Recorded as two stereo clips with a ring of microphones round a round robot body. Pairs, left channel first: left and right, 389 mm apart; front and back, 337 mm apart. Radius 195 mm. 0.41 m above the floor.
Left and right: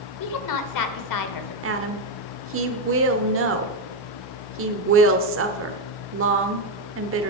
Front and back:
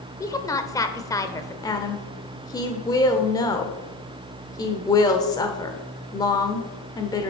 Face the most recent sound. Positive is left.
turn(degrees=-70)